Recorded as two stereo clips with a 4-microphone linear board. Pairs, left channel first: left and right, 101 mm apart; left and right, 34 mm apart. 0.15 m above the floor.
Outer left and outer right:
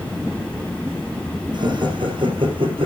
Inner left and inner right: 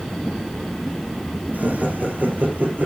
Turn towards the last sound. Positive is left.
turn(degrees=-60)  # may be behind; listen again after turning